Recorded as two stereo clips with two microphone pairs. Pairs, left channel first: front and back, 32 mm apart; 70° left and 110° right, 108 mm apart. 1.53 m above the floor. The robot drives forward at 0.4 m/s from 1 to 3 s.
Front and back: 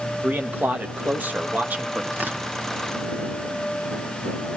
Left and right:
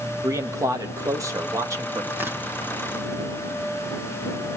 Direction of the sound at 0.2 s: 165° right.